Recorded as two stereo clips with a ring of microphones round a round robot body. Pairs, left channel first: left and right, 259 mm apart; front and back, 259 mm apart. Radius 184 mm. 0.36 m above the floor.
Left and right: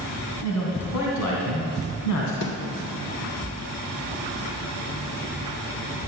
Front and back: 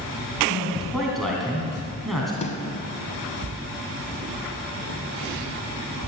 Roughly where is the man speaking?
Left.